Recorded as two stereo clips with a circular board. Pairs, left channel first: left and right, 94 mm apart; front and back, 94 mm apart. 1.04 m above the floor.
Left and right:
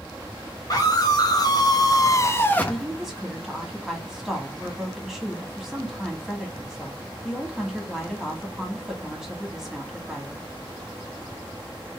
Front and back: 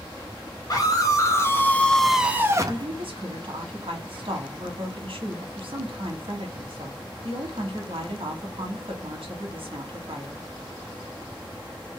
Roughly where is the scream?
Ahead left.